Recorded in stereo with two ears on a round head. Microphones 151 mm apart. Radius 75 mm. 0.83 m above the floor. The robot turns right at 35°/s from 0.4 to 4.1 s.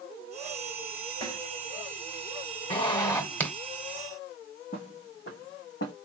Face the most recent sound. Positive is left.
turn(degrees=75)  # may be behind; listen again after turning